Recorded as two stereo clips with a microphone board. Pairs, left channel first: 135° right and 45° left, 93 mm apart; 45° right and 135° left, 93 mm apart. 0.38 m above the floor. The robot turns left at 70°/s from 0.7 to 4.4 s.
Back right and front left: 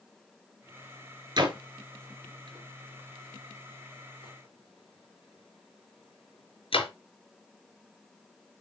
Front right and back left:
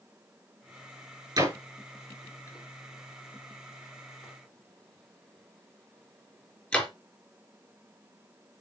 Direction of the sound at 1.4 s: 90° left.